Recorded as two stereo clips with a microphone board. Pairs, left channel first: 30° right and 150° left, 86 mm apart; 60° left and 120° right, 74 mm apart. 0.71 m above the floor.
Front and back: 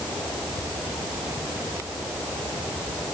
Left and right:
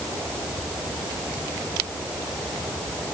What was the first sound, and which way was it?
Only background noise.